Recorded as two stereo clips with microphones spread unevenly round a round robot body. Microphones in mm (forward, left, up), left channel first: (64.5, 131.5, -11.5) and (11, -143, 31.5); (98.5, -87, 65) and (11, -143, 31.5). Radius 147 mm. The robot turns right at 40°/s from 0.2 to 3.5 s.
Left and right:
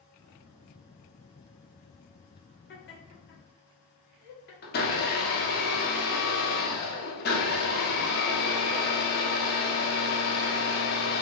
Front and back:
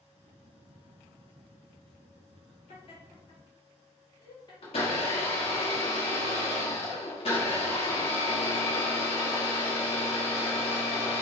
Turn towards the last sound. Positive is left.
turn(degrees=60)